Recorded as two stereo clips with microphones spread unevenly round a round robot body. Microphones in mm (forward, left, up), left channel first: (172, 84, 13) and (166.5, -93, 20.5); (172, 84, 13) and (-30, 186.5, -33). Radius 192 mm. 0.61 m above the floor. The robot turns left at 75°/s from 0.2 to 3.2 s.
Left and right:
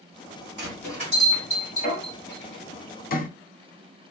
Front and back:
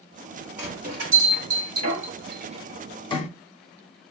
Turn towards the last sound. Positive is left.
turn(degrees=40)